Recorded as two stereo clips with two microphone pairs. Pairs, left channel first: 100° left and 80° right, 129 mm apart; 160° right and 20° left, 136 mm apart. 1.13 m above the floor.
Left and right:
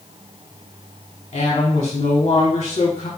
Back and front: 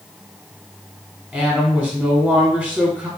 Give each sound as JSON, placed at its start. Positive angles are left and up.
{"t": 1.3, "sound": "a woman speaking", "azimuth_deg": 115, "distance_m": 0.9}